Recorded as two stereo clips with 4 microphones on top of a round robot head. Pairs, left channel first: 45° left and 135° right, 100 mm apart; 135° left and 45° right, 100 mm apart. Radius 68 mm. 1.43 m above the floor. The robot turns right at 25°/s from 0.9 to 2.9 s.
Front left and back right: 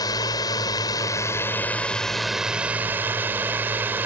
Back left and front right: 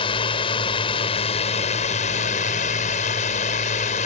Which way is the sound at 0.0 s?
100° left.